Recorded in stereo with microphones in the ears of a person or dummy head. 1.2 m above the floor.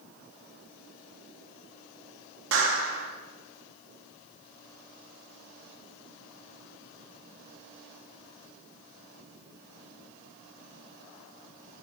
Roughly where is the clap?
Right.